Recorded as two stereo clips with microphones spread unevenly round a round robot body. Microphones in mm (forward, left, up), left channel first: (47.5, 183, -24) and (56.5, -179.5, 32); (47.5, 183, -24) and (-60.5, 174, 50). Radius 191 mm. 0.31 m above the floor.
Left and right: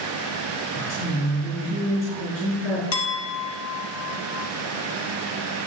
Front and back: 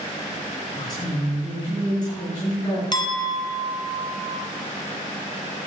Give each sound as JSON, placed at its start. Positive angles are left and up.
{"t": 0.7, "sound": "a woman speaking", "azimuth_deg": 40, "distance_m": 4.5}
{"t": 2.9, "sound": "a clink", "azimuth_deg": 40, "distance_m": 2.0}